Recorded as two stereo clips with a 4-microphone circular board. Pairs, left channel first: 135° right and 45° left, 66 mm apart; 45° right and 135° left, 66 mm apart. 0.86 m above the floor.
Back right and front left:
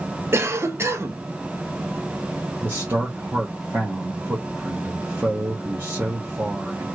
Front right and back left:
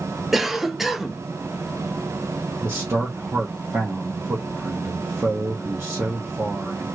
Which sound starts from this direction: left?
A man speaking, at 2.6 s.